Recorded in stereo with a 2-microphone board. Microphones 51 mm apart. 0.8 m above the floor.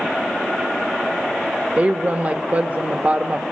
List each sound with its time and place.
1.8 s a woman speaking: 35° right (ahead or behind), 1.0 m